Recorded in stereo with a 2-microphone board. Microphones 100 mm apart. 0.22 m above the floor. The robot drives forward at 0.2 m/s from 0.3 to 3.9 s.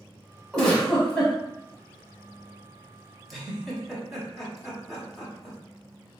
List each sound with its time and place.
0.5 s a giggle: 5° left (ahead or behind), 1.1 m
3.3 s a giggle: centre (ahead or behind), 0.8 m